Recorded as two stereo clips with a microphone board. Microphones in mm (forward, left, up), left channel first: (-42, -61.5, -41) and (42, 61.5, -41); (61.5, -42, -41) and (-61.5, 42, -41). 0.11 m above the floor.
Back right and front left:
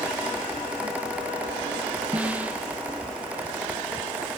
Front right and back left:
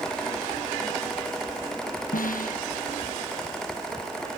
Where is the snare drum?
25° right.